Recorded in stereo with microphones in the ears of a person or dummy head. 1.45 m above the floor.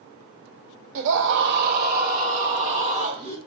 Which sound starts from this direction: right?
A scream, at 0.9 s.